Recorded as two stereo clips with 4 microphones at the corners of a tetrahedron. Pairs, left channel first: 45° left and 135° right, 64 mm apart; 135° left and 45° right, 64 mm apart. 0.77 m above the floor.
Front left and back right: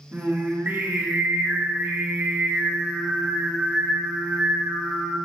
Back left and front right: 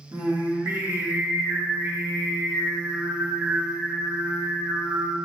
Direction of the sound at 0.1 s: 90° right.